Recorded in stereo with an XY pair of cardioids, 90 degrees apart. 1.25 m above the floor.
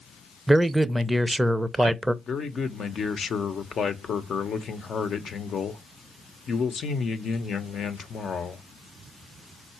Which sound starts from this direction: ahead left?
A man speaking, at 2.2 s.